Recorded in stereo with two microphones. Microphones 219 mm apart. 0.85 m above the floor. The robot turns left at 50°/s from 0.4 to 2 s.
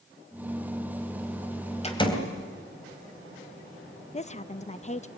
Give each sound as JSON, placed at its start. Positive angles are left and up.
{"t": 1.8, "sound": "a door slam", "side_deg": 30, "distance_m": 3.0}
{"t": 4.1, "sound": "a woman speaking", "side_deg": 30, "distance_m": 0.8}